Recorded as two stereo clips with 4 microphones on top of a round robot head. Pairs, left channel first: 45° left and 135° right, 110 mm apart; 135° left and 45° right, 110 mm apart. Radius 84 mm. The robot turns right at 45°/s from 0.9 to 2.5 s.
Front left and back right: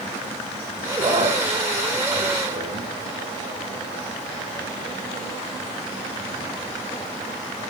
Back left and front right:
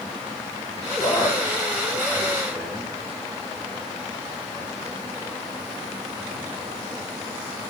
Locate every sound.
0.9 s a man speaking: 160° left, 7.5 m; by 2.9 s 130° right, 7.5 m